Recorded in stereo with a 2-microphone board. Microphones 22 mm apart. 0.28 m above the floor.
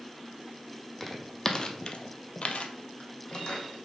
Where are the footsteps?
15° left (ahead or behind), 0.8 m; by 3.9 s 40° left (ahead or behind), 1.0 m.